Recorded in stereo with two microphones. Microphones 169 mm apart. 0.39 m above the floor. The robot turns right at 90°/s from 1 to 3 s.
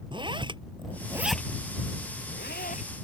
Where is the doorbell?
No doorbell in this recording.